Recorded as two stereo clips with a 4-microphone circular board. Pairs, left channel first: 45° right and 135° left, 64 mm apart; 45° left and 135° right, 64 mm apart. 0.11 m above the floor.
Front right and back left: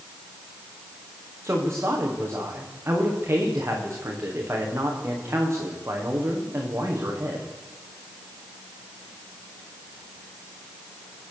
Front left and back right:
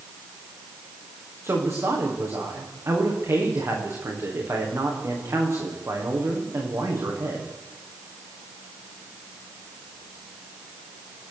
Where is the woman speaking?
175° right, 8 m.